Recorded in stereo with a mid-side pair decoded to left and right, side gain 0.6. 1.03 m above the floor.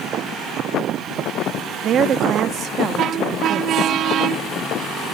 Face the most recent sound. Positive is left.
turn(degrees=-50)